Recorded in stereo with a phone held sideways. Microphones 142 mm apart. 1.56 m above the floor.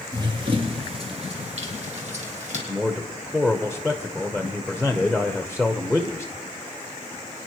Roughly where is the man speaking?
Centre.